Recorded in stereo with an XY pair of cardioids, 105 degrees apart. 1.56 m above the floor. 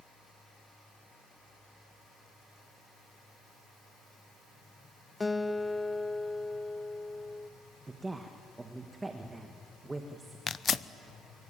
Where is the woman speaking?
20° right, 1.9 m.